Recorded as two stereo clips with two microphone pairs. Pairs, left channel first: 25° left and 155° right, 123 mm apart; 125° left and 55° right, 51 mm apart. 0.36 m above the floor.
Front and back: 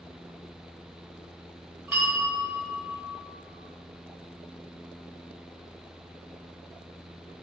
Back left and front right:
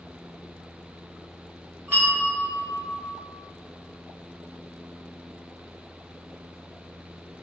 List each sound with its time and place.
1.9 s a bell: 85° right, 1.0 m